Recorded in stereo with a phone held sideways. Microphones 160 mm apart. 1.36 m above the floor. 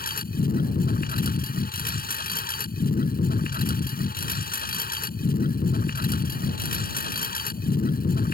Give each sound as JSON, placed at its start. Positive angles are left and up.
{"t": 0.0, "sound": "a lawn mower", "side_deg": 70}